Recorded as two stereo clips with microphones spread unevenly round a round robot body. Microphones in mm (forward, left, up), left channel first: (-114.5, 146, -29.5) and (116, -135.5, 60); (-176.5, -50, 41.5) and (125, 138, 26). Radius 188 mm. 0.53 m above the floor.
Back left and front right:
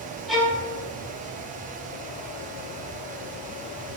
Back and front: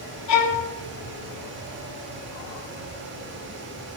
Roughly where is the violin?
Behind right.